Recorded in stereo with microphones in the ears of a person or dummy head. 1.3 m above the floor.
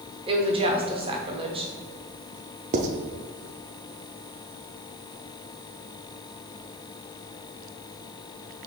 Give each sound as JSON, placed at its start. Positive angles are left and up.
{"t": 0.3, "sound": "a woman speaking", "side_deg": -30, "distance_m": 0.7}
{"t": 2.7, "sound": "writing", "side_deg": -35, "distance_m": 0.5}